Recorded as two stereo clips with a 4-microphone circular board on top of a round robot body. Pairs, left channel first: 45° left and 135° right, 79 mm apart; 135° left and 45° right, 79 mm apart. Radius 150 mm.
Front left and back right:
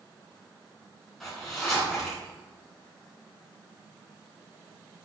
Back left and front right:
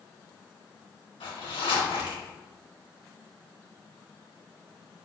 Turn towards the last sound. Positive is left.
turn(degrees=130)